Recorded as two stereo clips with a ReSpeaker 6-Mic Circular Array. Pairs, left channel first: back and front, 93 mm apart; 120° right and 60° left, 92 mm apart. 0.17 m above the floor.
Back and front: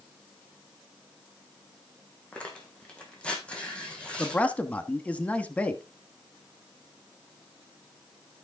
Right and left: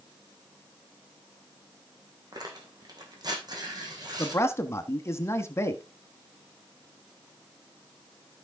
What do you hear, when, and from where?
2.3 s tearing paper: 105° left, 2.5 m
4.2 s a man speaking: 120° right, 1.1 m